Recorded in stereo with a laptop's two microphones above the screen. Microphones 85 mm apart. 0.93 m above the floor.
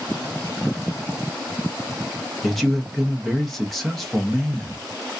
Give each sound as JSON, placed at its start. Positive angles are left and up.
{"t": 2.4, "sound": "a man speaking", "side_deg": 0, "distance_m": 0.6}